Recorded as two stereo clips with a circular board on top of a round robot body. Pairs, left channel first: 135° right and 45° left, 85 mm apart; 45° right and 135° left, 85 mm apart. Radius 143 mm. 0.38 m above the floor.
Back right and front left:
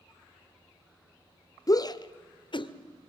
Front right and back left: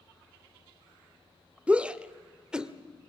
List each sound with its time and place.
1.7 s a shout: 155° right, 1.2 m; by 2.7 s 145° right, 1.8 m